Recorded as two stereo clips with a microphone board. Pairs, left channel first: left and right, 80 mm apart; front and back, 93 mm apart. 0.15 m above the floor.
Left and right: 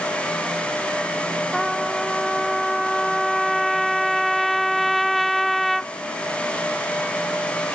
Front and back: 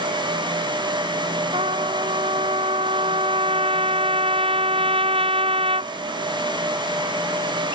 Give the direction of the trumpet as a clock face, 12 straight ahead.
6 o'clock.